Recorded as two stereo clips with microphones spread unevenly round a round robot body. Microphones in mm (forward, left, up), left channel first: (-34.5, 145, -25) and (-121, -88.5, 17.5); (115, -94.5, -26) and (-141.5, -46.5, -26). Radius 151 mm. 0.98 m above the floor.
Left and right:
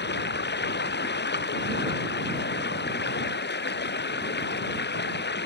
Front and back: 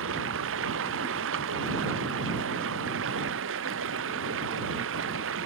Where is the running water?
115° left.